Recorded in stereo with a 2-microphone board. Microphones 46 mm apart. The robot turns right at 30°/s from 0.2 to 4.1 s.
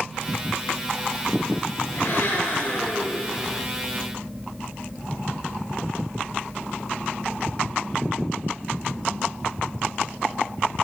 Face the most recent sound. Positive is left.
turn(degrees=170)